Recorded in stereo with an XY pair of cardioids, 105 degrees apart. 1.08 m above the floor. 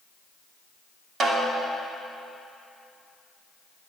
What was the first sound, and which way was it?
A snare drum, 55° right.